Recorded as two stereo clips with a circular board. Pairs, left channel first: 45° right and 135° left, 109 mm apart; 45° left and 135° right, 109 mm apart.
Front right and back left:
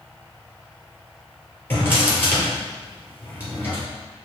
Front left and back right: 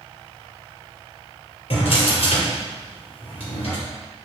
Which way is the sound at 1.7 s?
25° left.